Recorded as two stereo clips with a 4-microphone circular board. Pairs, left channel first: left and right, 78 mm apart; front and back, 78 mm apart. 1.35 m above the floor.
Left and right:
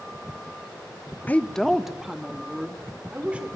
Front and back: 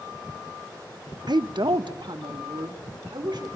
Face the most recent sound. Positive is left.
turn(degrees=-160)